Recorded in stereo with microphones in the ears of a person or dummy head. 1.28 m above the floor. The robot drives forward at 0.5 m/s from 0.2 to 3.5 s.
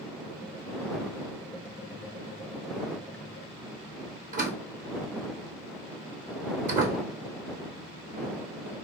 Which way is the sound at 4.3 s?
45° right (ahead or behind).